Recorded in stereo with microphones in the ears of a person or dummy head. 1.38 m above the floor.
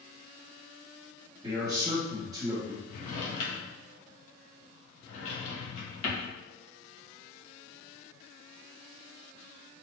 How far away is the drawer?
About 1.0 m.